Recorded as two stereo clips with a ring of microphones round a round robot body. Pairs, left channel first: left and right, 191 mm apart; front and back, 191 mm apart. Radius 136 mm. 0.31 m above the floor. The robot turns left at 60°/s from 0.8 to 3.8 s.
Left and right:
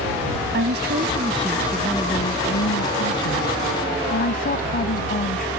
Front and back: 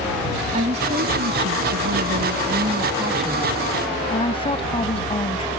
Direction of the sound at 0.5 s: 120° right.